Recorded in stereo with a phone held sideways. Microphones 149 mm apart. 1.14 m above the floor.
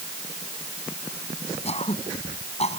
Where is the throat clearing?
45° left (ahead or behind).